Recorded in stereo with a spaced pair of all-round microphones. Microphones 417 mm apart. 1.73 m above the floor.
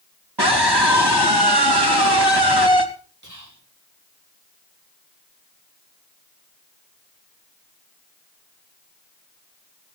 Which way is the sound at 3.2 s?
45° right (ahead or behind).